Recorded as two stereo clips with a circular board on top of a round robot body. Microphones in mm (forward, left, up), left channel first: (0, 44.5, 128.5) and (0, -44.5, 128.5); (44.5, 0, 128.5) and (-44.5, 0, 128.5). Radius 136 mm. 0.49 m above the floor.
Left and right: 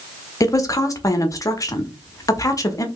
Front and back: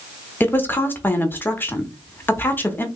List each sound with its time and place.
0.4 s a woman speaking: 60° left, 1.0 m